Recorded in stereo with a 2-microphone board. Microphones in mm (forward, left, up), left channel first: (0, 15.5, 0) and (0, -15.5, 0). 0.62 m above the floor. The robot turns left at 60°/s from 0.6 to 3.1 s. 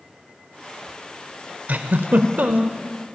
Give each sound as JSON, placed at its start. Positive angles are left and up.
{"t": 1.7, "sound": "a giggle", "azimuth_deg": -65, "distance_m": 0.6}